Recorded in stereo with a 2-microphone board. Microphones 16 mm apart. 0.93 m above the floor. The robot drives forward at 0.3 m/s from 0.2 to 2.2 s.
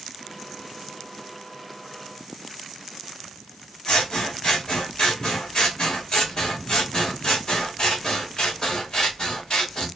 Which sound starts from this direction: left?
Scissors, at 3.9 s.